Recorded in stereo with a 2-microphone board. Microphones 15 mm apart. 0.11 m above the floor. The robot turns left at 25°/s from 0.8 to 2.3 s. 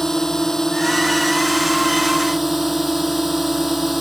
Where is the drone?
15° left; by 4.0 s 20° right.